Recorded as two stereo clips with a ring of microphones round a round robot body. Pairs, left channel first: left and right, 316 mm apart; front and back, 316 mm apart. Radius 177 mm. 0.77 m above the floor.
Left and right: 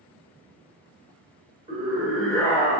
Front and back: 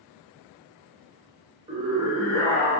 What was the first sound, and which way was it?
A scream, 140° right.